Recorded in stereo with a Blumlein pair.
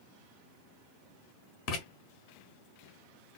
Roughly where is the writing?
Ahead left.